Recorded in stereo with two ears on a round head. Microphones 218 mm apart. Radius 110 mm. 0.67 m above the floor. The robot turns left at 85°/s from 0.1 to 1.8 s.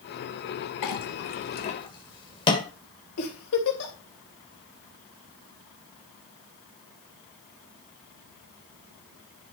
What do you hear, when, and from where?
0.8 s a clink: 75° left (ahead or behind), 1.6 m; by 2.6 s 20° left (ahead or behind), 1.6 m
3.2 s a giggle: 60° left (ahead or behind), 3 m